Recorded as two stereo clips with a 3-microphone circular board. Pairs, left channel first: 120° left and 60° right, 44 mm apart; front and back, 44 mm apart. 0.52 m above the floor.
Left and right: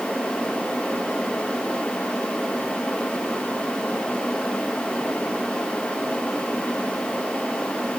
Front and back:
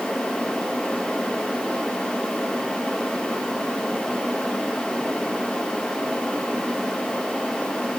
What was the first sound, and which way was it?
Only background noise.